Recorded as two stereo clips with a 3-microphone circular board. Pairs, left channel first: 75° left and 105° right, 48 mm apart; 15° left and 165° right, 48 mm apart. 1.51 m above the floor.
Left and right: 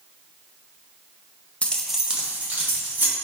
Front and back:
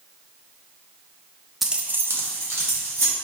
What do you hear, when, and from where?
1.6 s keys jangling: 110° left, 0.5 m; by 3.1 s 155° right, 2 m